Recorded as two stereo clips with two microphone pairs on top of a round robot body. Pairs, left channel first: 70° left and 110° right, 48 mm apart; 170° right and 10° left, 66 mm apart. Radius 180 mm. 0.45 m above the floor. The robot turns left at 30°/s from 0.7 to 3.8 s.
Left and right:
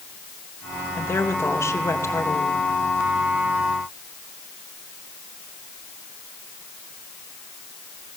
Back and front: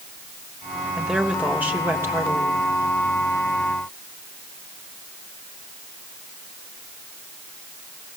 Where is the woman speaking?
95° left, 3 m; by 2.6 s 45° left, 3 m.